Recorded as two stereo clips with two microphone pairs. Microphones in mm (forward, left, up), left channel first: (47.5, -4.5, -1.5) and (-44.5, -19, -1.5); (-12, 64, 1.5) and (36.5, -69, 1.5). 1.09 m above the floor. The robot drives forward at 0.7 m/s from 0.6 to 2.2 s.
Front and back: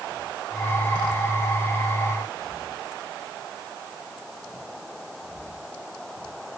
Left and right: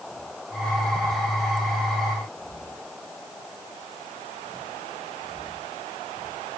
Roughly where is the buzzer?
I don't hear a buzzer.